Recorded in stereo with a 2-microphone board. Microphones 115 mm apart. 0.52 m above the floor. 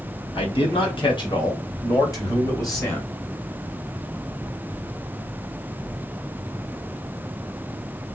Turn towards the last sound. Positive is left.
turn(degrees=25)  # may be behind; listen again after turning